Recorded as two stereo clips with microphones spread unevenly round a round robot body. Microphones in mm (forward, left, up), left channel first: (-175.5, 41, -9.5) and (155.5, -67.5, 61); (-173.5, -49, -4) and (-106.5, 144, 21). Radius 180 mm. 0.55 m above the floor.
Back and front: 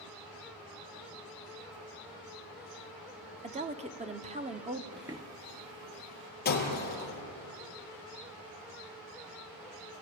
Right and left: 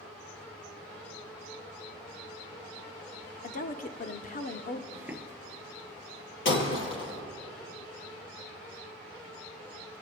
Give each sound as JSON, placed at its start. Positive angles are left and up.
{"t": 3.4, "sound": "a woman speaking", "azimuth_deg": -95, "distance_m": 1.2}
{"t": 4.9, "sound": "footsteps", "azimuth_deg": 60, "distance_m": 0.5}
{"t": 6.5, "sound": "breaking glass", "azimuth_deg": -135, "distance_m": 4.5}